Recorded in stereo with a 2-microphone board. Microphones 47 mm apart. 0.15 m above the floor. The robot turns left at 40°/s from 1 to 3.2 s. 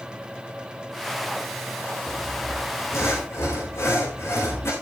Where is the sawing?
115° left, 6.5 m; by 4.7 s 70° left, 6.5 m.